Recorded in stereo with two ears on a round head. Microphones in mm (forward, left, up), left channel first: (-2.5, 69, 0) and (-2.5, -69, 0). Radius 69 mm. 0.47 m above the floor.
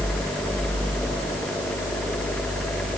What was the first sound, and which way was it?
Only background noise.